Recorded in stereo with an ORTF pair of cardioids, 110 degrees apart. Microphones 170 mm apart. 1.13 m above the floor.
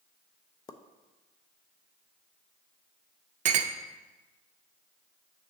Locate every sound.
0.7 s a pop: 25° left, 0.6 m
3.5 s a clink: 50° right, 0.6 m